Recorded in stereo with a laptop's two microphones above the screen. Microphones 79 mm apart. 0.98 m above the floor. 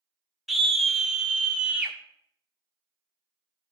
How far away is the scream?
About 1.3 m.